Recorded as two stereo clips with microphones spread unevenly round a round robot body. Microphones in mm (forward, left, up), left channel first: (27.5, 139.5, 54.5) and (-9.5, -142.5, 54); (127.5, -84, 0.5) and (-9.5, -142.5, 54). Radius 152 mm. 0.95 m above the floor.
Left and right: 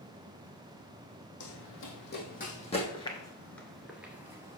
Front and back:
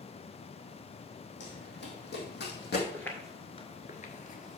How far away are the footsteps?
About 1.0 m.